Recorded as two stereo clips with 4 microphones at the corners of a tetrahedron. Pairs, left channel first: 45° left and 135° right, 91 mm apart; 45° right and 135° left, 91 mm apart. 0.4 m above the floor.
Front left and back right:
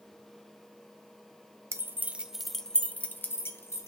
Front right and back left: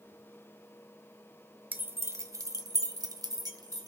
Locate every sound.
1.7 s keys jangling: 170° right, 0.9 m; by 3.9 s 95° left, 1.6 m